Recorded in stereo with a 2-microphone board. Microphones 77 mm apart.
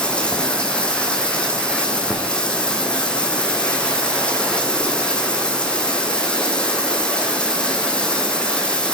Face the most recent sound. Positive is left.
turn(degrees=15)  # may be behind; listen again after turning